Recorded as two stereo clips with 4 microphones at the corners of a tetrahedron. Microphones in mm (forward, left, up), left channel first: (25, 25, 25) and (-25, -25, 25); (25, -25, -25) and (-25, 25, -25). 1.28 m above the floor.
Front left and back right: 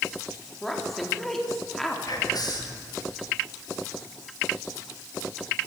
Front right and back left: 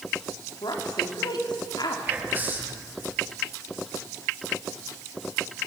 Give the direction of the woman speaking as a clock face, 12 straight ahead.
1 o'clock.